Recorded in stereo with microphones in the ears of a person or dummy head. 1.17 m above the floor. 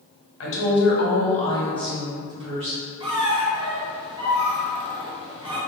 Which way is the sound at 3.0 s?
25° right (ahead or behind).